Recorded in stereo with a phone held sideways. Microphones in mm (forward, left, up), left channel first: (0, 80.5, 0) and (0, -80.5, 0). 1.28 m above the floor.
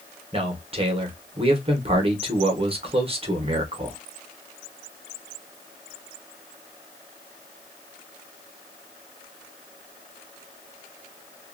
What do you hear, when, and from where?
0.3 s a man speaking: 35° right (ahead or behind), 0.9 m